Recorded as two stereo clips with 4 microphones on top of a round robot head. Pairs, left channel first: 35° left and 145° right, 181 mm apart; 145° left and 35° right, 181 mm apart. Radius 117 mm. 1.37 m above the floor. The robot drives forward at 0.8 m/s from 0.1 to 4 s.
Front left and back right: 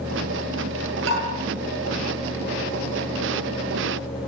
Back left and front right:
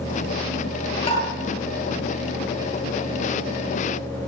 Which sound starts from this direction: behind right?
Tapping, at 1.1 s.